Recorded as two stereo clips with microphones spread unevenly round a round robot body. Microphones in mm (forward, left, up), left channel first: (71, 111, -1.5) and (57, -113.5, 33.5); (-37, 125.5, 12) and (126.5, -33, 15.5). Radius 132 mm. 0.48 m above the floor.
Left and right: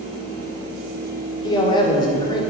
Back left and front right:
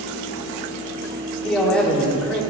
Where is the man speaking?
55° left, 1.3 m.